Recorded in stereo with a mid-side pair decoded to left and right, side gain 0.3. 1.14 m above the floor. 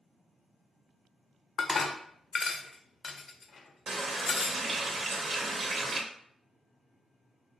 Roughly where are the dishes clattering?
Ahead left.